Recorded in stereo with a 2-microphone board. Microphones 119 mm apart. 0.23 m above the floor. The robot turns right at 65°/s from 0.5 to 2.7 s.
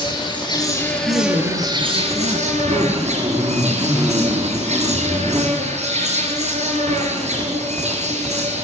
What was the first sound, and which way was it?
An insect, 140° left.